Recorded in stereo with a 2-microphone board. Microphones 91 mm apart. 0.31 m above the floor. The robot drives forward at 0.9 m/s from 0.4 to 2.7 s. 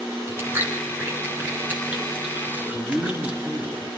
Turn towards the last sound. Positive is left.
turn(degrees=-55)  # may be behind; listen again after turning